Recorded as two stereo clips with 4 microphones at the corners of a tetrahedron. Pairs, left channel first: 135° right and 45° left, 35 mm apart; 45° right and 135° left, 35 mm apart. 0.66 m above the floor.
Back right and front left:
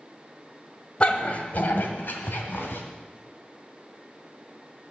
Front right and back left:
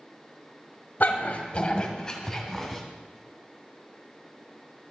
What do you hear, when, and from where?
1.0 s a dog barking: 80° right, 1.3 m; by 2.8 s 130° right, 2 m